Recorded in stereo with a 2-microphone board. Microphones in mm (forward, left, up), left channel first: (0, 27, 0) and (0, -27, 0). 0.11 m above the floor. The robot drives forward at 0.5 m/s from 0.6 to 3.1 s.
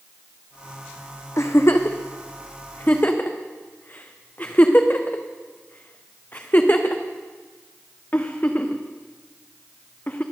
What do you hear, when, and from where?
1.4 s a giggle: 65° left (ahead or behind), 1.2 m; by 10.2 s 40° left (ahead or behind), 1.7 m